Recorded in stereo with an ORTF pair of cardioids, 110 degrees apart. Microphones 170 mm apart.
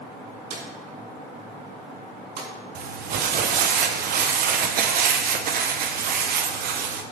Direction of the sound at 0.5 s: 70° right.